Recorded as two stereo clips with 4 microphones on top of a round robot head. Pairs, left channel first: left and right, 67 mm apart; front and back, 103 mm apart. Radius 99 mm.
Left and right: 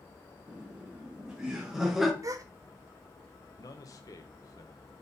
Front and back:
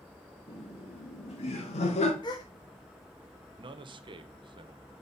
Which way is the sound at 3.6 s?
140° left.